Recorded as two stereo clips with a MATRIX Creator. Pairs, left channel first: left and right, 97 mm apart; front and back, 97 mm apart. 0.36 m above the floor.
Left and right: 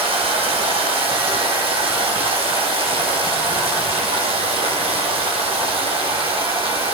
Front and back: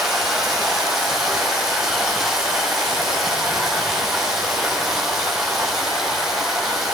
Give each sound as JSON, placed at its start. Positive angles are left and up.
{"t": 0.0, "sound": "running water", "azimuth_deg": -95, "distance_m": 3.0}